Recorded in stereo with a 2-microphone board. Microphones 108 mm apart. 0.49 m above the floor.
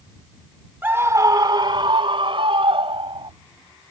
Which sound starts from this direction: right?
A scream, at 0.8 s.